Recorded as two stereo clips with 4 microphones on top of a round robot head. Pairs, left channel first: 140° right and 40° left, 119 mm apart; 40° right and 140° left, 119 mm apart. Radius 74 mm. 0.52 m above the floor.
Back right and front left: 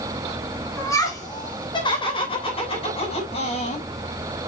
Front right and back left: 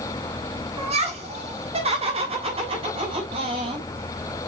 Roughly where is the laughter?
Behind left.